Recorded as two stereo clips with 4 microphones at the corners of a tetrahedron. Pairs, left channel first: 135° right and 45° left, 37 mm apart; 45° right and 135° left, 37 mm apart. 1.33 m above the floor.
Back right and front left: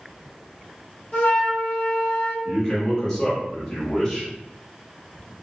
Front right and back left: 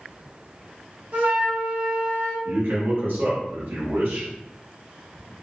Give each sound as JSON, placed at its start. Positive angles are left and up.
{"t": 1.1, "sound": "a flute", "azimuth_deg": 170, "distance_m": 1.1}
{"t": 2.5, "sound": "a man speaking", "azimuth_deg": 150, "distance_m": 1.2}